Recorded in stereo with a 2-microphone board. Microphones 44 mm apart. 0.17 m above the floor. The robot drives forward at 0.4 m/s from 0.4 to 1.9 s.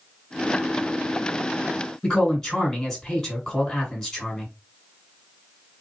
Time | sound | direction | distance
2.0 | a man speaking | 10° left (ahead or behind) | 1.9 m